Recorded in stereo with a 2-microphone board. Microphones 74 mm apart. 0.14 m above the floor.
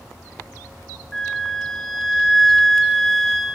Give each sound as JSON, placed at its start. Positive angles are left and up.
{"t": 1.1, "sound": "a flute", "side_deg": 5, "distance_m": 0.8}